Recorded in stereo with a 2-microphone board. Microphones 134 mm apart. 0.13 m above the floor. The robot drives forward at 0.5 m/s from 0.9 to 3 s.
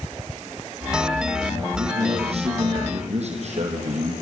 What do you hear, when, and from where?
1.8 s a man speaking: 45° right (ahead or behind), 4 m; by 4.1 s 55° right (ahead or behind), 4 m